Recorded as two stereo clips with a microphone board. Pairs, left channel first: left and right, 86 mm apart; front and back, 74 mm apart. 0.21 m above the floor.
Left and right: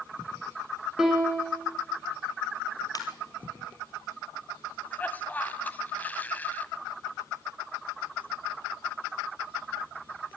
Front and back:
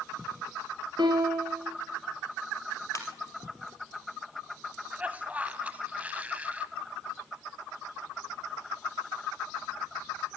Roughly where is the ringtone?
Ahead left.